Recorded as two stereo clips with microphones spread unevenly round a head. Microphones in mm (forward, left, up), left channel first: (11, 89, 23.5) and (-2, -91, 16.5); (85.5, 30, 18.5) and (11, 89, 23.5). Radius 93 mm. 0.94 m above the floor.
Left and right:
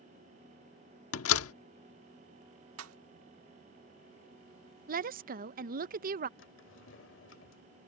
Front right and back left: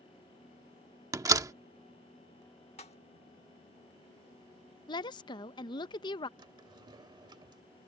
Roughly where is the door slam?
Left.